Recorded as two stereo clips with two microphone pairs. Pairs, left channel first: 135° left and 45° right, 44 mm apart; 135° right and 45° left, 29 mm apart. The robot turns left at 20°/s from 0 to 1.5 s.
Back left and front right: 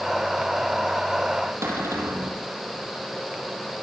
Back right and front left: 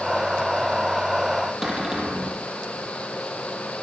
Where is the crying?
No crying in this recording.